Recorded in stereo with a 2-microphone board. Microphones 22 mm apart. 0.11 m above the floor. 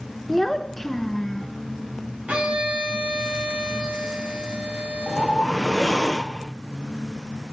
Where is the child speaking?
10° left (ahead or behind), 0.9 m; by 1.5 s 15° left (ahead or behind), 1.0 m.